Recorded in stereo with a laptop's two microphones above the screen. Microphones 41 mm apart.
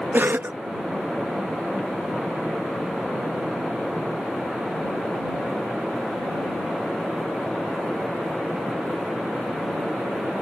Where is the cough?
60° right (ahead or behind).